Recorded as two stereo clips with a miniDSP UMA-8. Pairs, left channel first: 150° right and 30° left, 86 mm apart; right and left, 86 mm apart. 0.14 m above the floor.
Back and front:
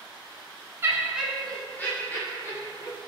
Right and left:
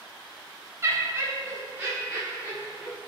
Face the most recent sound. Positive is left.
turn(degrees=170)